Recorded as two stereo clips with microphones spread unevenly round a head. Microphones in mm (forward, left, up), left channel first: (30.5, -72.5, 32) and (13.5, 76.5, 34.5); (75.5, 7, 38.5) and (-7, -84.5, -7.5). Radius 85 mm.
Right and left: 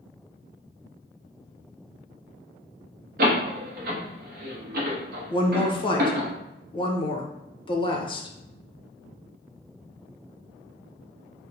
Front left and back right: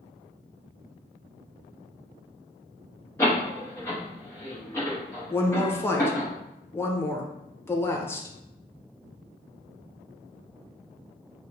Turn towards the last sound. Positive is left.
turn(degrees=-35)